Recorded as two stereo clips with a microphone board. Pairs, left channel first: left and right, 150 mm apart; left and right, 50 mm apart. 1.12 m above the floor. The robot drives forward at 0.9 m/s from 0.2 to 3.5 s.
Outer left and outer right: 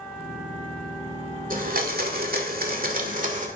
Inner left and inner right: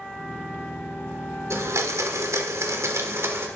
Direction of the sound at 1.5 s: 65° right (ahead or behind).